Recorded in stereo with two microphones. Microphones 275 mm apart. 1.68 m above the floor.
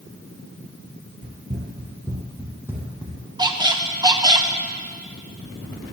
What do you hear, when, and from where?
1.2 s running footsteps: 30° right (ahead or behind), 2 m; by 3.2 s 5° right (ahead or behind), 3.5 m
3.4 s a squeak: 15° right (ahead or behind), 0.8 m